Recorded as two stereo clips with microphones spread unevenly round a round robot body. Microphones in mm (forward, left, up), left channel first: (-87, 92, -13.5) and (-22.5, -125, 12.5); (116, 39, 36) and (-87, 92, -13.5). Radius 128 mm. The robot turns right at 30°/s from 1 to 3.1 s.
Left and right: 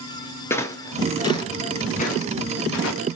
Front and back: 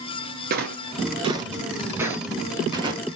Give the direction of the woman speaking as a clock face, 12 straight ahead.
No woman speaking in this recording.